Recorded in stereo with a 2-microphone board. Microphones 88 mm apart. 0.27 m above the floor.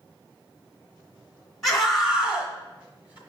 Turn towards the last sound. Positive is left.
turn(degrees=-20)  # may be behind; listen again after turning